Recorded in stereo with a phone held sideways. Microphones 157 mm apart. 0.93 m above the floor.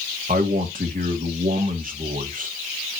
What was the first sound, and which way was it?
A man speaking, 60° right (ahead or behind).